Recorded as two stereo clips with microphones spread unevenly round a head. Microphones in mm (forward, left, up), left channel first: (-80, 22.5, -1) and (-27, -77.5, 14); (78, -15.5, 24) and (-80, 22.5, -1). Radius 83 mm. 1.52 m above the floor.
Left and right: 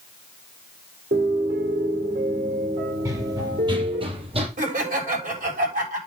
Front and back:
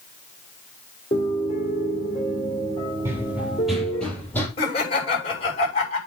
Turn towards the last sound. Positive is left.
turn(degrees=-70)